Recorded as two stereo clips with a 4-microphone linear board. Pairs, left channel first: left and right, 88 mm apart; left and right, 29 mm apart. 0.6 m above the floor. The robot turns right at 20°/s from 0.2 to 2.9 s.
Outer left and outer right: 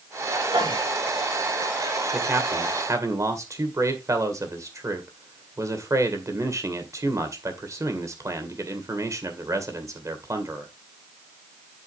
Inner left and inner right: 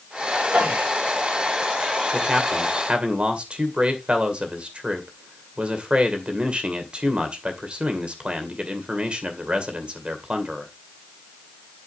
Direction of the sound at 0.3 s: 55° right (ahead or behind).